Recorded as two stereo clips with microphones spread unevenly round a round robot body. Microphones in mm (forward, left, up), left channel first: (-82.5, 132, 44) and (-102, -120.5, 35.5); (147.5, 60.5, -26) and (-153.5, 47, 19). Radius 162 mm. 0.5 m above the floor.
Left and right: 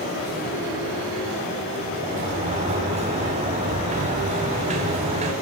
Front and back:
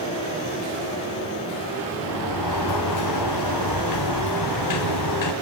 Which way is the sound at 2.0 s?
25° right.